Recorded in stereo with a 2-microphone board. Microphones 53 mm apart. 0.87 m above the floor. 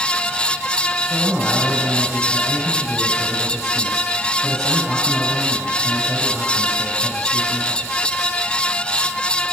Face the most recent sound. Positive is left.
turn(degrees=-10)  # may be behind; listen again after turning